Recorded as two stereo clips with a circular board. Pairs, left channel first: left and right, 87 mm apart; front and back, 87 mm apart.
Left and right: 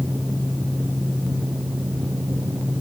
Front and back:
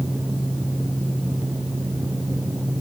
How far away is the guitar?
No guitar in this recording.